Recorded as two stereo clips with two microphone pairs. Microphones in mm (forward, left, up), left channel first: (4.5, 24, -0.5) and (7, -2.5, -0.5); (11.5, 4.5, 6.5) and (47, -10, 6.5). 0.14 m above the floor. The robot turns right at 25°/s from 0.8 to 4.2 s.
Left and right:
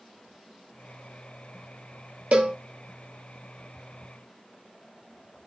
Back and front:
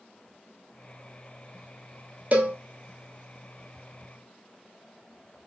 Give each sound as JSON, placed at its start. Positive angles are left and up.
{"t": 2.3, "sound": "a cowbell", "azimuth_deg": -65, "distance_m": 0.9}